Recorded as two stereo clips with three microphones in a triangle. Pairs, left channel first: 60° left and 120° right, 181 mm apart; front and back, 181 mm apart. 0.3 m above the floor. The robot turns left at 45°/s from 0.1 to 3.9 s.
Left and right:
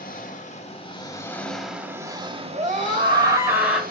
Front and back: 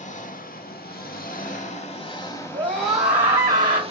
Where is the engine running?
40° left, 0.7 m; by 3.9 s 135° right, 0.7 m.